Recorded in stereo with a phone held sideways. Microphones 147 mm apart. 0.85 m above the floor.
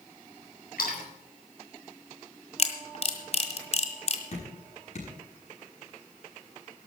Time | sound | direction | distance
0.8 | a splash | 80° left | 4.5 m
2.6 | a camera shutter | 45° left (ahead or behind) | 1.8 m
4.3 | dripping | 55° left (ahead or behind) | 6.5 m